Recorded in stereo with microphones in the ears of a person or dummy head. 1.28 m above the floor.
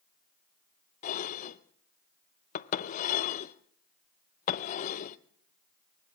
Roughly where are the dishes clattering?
Left.